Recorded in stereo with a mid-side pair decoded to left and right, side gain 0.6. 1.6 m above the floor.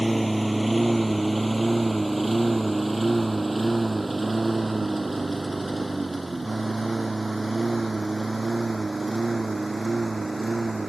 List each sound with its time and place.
0.0 s a lawn mower: 5° right; by 10.9 s 15° right